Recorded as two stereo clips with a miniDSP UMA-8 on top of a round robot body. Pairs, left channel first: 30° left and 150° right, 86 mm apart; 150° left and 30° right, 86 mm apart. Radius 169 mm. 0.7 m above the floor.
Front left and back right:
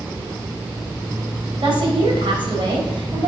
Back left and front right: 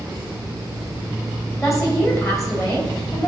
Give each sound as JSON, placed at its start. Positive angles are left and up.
{"t": 1.6, "sound": "a woman speaking", "azimuth_deg": -155, "distance_m": 3.0}